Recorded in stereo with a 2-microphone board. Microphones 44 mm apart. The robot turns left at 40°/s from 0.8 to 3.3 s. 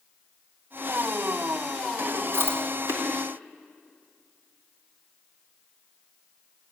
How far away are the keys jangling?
I don't hear keys jangling.